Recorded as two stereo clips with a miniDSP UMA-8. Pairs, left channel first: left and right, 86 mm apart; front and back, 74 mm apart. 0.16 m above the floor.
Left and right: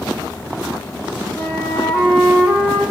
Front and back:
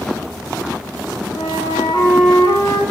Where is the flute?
5° left, 8 m.